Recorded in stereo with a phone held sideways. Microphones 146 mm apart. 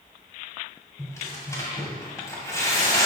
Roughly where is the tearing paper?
Centre.